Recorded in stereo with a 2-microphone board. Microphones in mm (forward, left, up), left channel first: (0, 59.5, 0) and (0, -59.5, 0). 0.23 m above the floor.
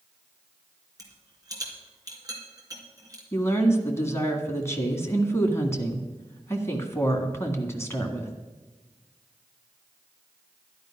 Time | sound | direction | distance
1.0 | a rattle | 30° right (ahead or behind) | 3 m
3.3 | a woman speaking | 20° left (ahead or behind) | 1.9 m